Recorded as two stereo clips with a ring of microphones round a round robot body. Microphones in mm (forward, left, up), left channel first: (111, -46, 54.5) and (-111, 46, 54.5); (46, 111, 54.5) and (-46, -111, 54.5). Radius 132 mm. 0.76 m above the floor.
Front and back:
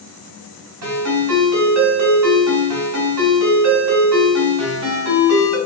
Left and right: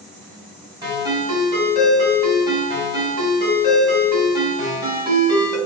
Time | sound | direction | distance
0.8 | a ringtone | 175° left | 1.6 m